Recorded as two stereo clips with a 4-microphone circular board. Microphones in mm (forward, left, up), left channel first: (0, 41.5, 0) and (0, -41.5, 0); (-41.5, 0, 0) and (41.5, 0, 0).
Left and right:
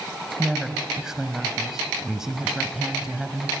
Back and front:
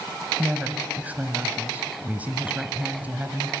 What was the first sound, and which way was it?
A woman speaking, 20° right.